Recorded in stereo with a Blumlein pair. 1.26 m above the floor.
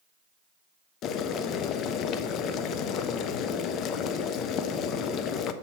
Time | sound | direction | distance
1.0 | boiling | 35° left | 0.5 m